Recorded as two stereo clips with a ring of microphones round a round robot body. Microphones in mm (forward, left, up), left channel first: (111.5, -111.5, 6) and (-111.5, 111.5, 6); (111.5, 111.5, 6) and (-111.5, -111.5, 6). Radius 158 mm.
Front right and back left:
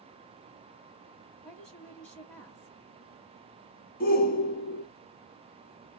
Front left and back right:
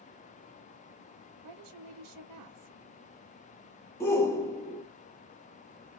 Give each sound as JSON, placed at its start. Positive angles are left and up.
{"t": 1.4, "sound": "a woman speaking", "azimuth_deg": -130, "distance_m": 1.1}
{"t": 4.0, "sound": "a shout", "azimuth_deg": -30, "distance_m": 1.0}